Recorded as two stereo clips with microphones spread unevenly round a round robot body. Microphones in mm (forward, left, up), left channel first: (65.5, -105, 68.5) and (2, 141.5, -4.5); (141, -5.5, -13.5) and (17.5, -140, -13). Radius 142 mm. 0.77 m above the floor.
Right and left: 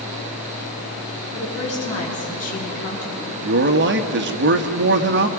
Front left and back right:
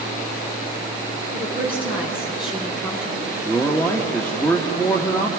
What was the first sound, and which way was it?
A woman speaking, 10° right.